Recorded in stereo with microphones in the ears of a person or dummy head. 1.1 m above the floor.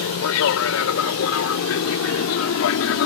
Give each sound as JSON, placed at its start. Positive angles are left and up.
{"t": 0.0, "sound": "an aircraft", "side_deg": 75}